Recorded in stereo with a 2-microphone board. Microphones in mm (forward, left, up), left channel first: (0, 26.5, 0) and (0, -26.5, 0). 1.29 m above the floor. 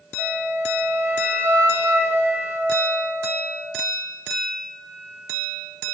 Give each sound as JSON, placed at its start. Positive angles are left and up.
{"t": 0.2, "sound": "a flute", "side_deg": -45, "distance_m": 0.8}